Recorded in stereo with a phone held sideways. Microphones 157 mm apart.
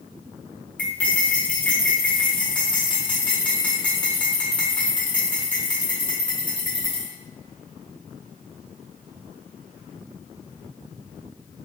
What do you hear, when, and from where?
0.8 s cutlery clinking: 10° left (ahead or behind), 1.2 m